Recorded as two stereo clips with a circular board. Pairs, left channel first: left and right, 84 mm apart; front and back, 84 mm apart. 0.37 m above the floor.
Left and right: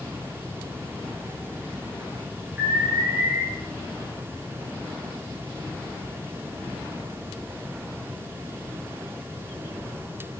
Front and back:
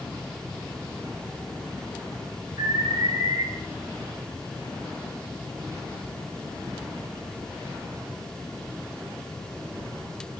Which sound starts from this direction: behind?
An alarm, at 2.6 s.